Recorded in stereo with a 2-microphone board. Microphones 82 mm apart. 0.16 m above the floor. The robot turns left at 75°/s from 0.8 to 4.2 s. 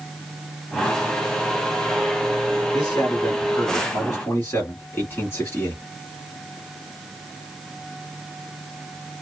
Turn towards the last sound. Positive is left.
turn(degrees=55)